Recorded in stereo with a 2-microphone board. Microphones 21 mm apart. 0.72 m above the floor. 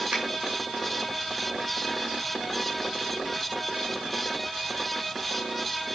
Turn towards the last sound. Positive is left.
turn(degrees=-50)  # may be behind; listen again after turning